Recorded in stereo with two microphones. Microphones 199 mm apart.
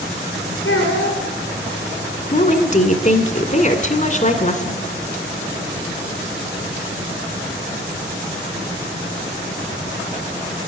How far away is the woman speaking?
About 1.9 m.